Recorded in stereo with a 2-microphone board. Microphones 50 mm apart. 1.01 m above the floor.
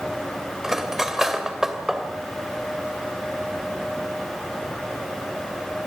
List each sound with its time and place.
0.6 s cutlery clinking: 10° right (ahead or behind), 2.5 m